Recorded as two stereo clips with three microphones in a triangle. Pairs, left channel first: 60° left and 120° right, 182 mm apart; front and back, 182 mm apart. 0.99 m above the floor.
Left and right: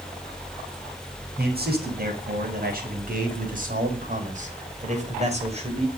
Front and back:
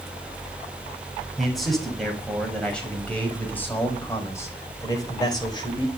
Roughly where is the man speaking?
Right.